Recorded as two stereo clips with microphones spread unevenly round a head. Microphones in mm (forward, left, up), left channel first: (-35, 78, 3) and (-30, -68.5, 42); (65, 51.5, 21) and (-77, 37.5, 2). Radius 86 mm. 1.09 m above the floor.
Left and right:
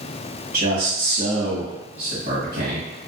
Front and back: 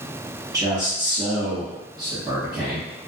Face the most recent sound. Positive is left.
turn(degrees=-120)